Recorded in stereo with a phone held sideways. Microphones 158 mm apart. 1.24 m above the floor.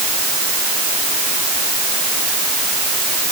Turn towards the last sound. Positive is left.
No sound to turn to.